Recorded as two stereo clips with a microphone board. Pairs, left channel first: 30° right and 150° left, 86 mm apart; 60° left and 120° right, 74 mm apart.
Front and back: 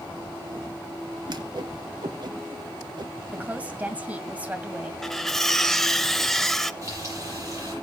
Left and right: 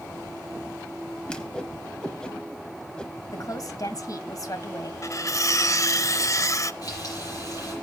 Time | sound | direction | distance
1.3 | a whoosh | 140° left | 1.1 m
3.3 | a woman speaking | 80° left | 1.8 m
5.0 | cutlery clinking | 55° left | 0.6 m
6.8 | frying | 100° left | 8 m